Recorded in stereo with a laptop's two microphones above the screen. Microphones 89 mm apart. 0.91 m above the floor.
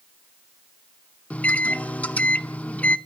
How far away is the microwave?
About 0.7 m.